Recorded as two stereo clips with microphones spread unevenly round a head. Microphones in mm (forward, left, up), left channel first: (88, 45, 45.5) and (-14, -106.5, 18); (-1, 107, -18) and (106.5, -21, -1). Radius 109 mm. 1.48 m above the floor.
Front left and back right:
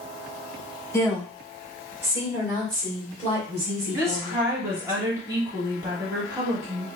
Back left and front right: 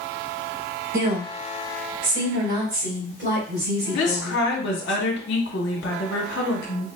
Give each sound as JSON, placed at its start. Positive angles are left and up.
{"t": 0.9, "sound": "a woman speaking", "azimuth_deg": -20, "distance_m": 1.3}
{"t": 3.9, "sound": "a woman speaking", "azimuth_deg": 155, "distance_m": 0.8}